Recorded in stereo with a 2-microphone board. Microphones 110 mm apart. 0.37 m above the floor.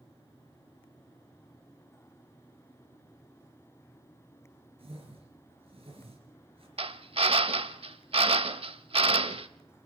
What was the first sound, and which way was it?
A whoosh, 60° right (ahead or behind).